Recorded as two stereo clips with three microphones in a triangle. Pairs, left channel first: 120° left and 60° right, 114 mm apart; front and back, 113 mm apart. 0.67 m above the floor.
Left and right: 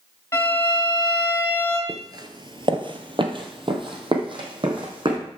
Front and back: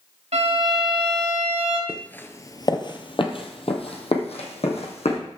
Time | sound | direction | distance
0.3 | a violin | 175° right | 2.5 m
1.9 | footsteps | 85° right | 0.7 m